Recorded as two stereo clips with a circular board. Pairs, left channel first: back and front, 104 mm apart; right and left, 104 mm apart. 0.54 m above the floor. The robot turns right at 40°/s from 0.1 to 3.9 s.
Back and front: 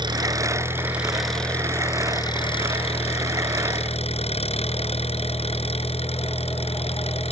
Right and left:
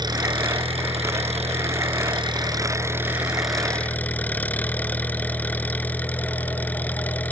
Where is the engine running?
45° left; by 7.3 s 165° right.